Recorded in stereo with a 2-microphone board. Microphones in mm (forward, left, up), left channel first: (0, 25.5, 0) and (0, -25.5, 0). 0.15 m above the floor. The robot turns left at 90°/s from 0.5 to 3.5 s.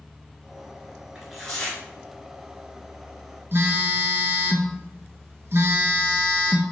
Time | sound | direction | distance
1.1 | tearing paper | 160° right | 1.2 m
3.5 | a phone buzzing | 50° right (ahead or behind) | 0.7 m